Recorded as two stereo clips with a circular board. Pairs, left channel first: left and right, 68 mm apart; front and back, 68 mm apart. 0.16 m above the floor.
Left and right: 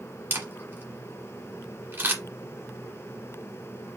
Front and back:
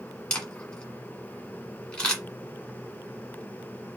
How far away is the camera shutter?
About 1.5 m.